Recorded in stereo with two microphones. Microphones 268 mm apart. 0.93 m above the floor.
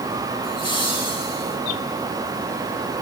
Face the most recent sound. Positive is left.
turn(degrees=70)  # may be behind; listen again after turning